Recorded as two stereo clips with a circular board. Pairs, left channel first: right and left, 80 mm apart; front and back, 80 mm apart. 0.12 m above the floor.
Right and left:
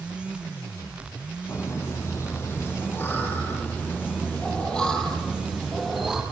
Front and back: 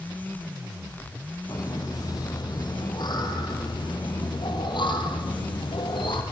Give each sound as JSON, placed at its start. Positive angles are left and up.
{"t": 1.5, "sound": "laughter", "azimuth_deg": -40, "distance_m": 6.0}